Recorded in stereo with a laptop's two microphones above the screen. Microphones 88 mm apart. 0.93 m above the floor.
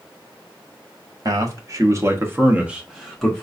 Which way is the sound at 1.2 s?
40° right (ahead or behind).